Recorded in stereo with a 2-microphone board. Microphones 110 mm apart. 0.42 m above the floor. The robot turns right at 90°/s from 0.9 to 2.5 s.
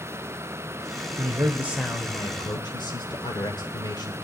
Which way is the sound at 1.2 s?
60° right.